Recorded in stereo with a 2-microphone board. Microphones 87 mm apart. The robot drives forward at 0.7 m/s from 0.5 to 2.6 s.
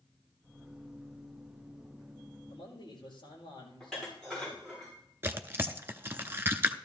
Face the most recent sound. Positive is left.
turn(degrees=-25)  # may be behind; listen again after turning